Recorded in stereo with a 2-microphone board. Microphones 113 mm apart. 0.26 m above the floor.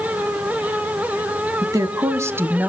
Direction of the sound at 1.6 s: 35° right (ahead or behind).